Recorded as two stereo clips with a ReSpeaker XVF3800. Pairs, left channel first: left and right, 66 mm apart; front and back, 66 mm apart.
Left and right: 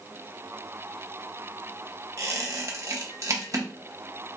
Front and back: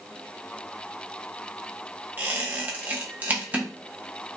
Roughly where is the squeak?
Behind right.